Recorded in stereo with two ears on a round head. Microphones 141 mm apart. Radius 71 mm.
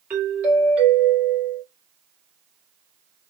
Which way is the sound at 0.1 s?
10° right (ahead or behind).